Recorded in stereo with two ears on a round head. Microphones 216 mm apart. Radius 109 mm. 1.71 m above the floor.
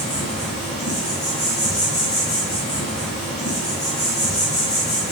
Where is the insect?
30° left (ahead or behind), 1.7 m.